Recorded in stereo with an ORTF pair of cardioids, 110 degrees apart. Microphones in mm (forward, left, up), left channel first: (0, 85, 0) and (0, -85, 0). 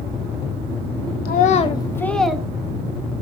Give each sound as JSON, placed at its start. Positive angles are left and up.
{"t": 1.2, "sound": "a child speaking", "azimuth_deg": 65, "distance_m": 0.6}